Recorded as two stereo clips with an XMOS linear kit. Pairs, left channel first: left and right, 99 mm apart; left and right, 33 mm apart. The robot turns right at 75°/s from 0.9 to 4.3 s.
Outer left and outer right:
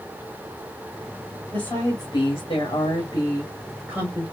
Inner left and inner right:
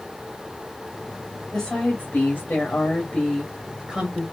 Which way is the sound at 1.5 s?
20° left.